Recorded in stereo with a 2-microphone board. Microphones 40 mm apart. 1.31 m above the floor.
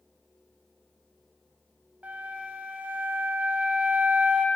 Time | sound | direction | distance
2.0 | a flute | 40° right (ahead or behind) | 0.5 m